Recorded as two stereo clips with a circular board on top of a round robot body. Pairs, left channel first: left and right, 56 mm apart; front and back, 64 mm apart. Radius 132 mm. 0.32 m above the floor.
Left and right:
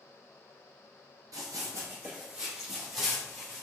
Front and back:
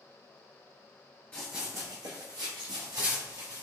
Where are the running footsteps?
75° right, 0.5 m; by 3.6 s straight behind, 2 m.